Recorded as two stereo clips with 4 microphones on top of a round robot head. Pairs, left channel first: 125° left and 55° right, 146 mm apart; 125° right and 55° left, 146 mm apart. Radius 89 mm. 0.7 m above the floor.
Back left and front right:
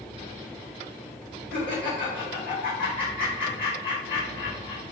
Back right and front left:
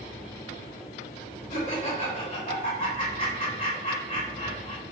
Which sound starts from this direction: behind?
Laughter, at 1.5 s.